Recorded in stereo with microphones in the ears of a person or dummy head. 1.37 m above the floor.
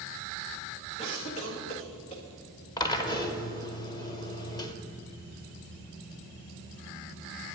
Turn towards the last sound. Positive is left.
turn(degrees=25)  # may be behind; listen again after turning